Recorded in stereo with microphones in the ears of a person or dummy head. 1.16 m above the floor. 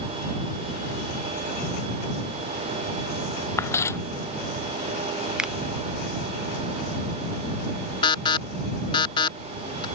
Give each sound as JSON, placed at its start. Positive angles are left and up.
{"t": 3.6, "sound": "footsteps", "side_deg": 15}
{"t": 5.4, "sound": "a finger snap", "side_deg": -5}
{"t": 8.0, "sound": "an alarm", "side_deg": 25}